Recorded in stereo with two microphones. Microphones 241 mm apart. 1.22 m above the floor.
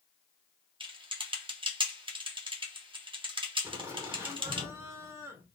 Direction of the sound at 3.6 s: 15° right (ahead or behind).